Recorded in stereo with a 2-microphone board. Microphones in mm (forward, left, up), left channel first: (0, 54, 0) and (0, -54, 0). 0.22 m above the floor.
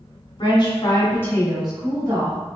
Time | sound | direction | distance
0.4 | a woman speaking | 50° left (ahead or behind) | 1.5 m